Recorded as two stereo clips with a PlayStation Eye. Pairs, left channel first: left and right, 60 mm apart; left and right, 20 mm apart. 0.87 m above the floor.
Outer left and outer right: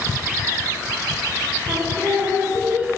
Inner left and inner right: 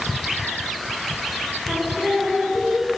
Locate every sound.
1.7 s singing: 50° right (ahead or behind), 1.2 m